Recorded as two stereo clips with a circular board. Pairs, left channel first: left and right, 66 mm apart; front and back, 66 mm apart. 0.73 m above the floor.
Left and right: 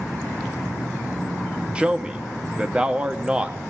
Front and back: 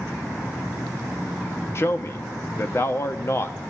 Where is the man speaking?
25° right, 0.8 m.